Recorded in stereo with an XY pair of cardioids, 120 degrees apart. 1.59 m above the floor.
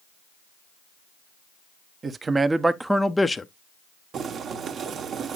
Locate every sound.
2.0 s a man speaking: 35° right, 1.0 m; by 3.5 s 25° left, 0.7 m
4.1 s boiling: 50° right, 1.4 m